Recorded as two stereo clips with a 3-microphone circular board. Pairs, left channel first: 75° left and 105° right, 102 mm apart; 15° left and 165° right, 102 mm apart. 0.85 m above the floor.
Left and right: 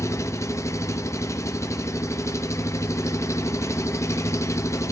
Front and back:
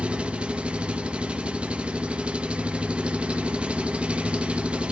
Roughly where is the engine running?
Behind left.